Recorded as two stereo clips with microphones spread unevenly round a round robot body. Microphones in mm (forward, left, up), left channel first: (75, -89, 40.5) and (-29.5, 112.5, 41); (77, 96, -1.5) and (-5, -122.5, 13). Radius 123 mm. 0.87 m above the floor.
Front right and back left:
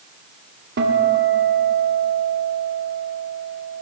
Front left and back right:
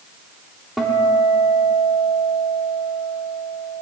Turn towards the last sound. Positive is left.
turn(degrees=160)